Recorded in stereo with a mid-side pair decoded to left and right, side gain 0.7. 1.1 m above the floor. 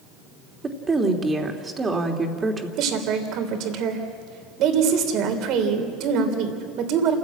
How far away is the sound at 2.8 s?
About 3.5 m.